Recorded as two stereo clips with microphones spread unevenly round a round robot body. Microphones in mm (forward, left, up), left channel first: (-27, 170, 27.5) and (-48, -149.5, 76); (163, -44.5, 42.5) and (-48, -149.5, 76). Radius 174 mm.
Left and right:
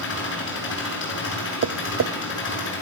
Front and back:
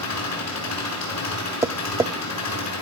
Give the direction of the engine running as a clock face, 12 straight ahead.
11 o'clock.